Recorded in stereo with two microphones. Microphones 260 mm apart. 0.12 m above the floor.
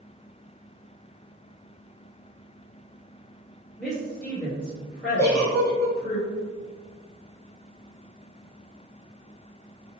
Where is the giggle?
15° left (ahead or behind), 0.8 m.